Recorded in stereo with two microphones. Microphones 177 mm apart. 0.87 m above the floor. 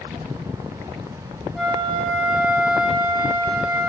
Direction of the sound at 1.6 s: Centre (ahead or behind).